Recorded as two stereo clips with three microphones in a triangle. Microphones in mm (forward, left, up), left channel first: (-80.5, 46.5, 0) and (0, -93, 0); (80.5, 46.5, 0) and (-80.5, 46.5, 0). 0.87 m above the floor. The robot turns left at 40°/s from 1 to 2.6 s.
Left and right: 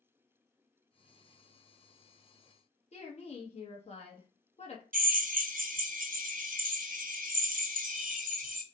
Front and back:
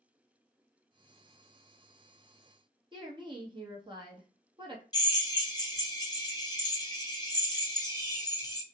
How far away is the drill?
About 0.6 m.